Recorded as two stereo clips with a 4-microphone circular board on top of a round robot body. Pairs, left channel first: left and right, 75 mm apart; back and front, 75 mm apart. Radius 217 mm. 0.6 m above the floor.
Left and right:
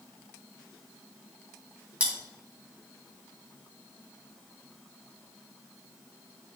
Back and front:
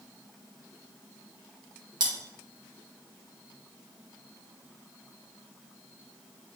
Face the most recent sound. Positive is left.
turn(degrees=-15)